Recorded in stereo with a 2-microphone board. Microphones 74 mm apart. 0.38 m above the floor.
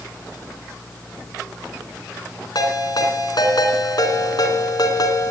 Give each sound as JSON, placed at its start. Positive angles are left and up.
{"t": 2.5, "sound": "a ringtone", "side_deg": 65, "distance_m": 2.5}